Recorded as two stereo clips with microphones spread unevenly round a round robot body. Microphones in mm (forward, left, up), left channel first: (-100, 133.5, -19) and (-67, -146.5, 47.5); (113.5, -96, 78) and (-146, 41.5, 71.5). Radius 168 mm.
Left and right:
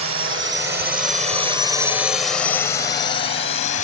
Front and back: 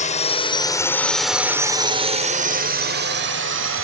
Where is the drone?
75° right; by 3.8 s 135° left.